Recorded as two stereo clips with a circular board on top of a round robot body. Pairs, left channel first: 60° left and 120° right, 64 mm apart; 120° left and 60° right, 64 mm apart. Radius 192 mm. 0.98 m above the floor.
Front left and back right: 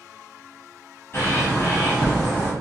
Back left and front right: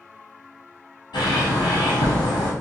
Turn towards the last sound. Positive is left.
turn(degrees=115)